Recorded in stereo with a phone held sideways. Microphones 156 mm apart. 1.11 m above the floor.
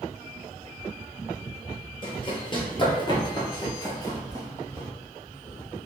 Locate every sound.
2.0 s running footsteps: 30° left (ahead or behind), 1.4 m; by 4.9 s 15° left (ahead or behind), 1.6 m